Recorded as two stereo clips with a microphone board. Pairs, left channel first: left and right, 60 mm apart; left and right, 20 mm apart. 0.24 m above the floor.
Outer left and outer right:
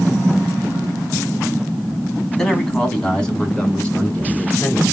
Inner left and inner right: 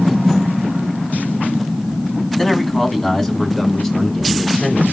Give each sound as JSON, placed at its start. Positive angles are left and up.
{"t": 2.4, "sound": "a man speaking", "side_deg": 5, "distance_m": 1.6}